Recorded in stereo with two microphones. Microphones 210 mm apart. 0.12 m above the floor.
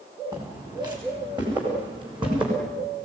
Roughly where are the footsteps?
Centre.